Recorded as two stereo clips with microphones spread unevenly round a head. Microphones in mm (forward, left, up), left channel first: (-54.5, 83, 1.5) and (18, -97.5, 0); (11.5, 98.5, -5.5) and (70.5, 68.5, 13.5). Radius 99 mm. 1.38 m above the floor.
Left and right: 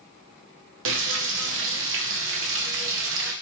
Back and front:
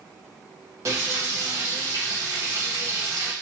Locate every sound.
0.8 s frying: 95° right, 0.6 m